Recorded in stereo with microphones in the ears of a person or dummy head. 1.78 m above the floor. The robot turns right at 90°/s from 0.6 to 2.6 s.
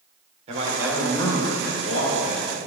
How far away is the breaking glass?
I don't hear breaking glass.